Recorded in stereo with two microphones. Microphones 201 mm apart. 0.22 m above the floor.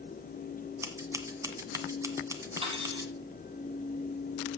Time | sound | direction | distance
0.8 | scissors | 15° right (ahead or behind) | 1.7 m
2.6 | cutlery clinking | 30° right (ahead or behind) | 4.5 m